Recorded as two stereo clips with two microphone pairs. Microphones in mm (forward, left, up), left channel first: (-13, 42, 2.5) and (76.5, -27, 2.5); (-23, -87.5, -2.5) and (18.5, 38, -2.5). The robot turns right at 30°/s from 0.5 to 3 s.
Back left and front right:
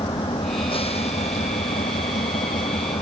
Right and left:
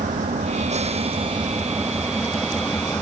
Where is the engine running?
100° left; by 3.0 s 175° left.